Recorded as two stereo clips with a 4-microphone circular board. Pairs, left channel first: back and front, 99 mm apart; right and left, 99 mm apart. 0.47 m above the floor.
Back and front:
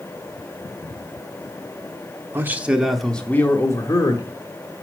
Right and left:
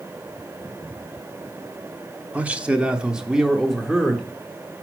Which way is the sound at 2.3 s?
30° left.